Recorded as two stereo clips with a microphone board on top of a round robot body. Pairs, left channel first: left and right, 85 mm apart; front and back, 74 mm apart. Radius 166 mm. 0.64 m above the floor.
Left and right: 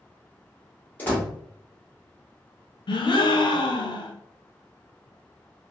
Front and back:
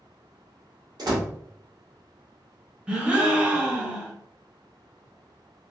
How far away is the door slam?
About 1.7 m.